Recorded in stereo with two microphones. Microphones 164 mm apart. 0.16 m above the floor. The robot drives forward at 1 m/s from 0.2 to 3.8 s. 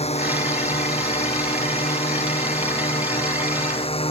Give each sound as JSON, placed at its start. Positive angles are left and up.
{"t": 0.0, "sound": "a drone", "side_deg": 40}